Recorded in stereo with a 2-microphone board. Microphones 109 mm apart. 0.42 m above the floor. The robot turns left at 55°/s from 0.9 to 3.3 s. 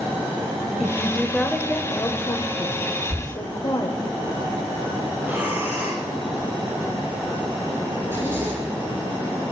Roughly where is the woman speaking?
Behind.